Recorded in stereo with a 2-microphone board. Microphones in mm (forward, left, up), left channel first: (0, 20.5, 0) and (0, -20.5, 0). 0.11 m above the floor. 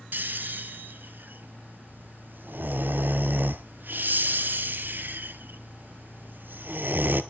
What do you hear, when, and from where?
0.1 s snoring: 55° right (ahead or behind), 0.8 m